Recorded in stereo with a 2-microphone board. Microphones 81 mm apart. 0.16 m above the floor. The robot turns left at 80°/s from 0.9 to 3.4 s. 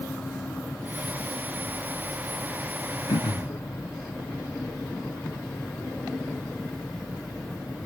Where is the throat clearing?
85° left, 1.0 m; by 3.6 s 60° left (ahead or behind), 1.0 m.